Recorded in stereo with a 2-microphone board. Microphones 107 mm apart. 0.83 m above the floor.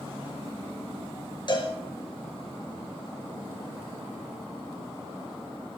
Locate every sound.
1.5 s a cowbell: 45° left (ahead or behind), 3.5 m